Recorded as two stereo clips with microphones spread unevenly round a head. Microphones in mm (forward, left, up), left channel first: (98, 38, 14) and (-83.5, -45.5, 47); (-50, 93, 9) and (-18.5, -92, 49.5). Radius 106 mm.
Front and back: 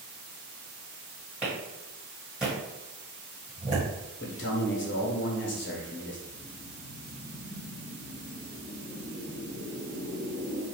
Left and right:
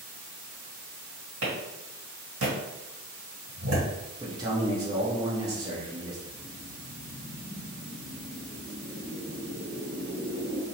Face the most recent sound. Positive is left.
turn(degrees=80)